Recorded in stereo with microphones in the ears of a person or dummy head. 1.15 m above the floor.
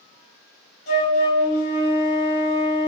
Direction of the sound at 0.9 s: 55° left (ahead or behind).